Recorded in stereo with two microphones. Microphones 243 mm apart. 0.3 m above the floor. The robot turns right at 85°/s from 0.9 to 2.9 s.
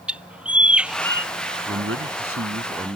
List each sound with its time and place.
0.1 s a bird: 5° right; by 1.3 s 30° left
1.7 s a man speaking: 130° right; by 3.0 s 25° right